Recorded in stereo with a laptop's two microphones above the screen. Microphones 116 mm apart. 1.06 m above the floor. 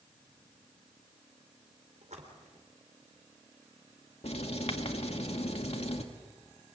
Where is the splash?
80° right, 3.5 m.